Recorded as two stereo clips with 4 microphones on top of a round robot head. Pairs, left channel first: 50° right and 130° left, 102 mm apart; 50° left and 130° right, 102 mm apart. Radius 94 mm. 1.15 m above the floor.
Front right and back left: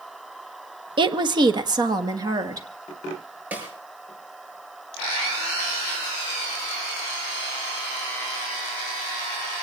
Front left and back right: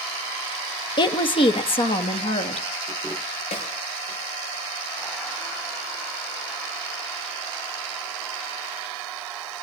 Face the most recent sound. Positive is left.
turn(degrees=55)